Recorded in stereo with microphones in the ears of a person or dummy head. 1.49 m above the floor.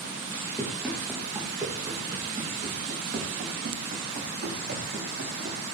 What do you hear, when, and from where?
0.6 s running footsteps: centre (ahead or behind), 3 m; by 5.6 s 55° right (ahead or behind), 5 m